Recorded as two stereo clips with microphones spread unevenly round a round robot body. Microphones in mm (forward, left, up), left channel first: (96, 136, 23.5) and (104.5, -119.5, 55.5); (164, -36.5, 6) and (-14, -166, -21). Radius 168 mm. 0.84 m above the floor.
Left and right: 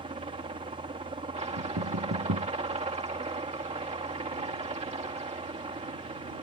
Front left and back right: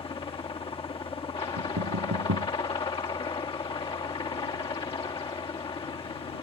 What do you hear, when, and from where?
0.0 s a helicopter: 25° right
1.6 s knocking: 135° right